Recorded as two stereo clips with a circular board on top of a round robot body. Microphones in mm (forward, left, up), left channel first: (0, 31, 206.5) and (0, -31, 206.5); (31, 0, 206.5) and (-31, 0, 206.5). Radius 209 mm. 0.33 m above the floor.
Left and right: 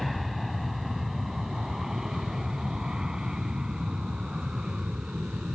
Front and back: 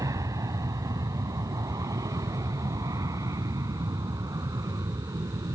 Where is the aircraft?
Straight behind; by 5.5 s 165° right.